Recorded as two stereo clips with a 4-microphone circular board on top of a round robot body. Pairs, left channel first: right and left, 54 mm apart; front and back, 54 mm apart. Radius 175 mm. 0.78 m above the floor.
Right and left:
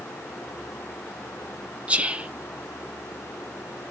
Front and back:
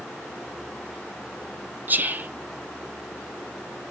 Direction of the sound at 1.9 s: 145° left.